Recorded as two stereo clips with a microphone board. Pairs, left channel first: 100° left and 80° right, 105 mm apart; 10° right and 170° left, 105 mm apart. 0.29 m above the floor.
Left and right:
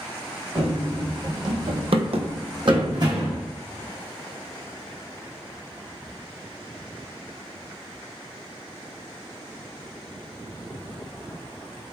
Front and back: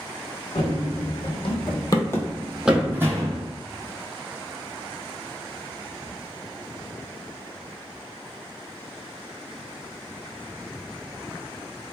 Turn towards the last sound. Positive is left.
turn(degrees=-130)